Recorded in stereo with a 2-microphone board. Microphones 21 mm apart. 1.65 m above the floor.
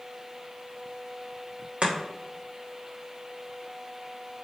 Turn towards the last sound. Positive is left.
turn(degrees=-60)  # may be behind; listen again after turning